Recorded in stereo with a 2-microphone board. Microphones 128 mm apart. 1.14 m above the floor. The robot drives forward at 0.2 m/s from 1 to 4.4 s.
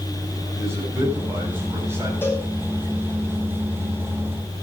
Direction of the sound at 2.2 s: 20° left (ahead or behind).